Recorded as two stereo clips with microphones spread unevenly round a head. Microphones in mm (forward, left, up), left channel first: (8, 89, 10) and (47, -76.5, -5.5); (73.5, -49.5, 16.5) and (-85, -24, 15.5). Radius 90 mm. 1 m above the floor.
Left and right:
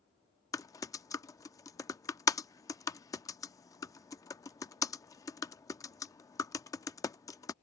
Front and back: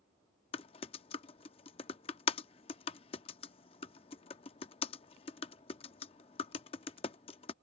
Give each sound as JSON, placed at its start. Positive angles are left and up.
{"t": 0.5, "sound": "typing on a keyboard", "azimuth_deg": 40}